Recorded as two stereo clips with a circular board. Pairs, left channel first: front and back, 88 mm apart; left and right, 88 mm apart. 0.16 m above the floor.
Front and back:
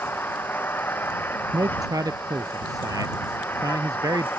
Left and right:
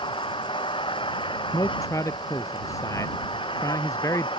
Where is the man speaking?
140° left.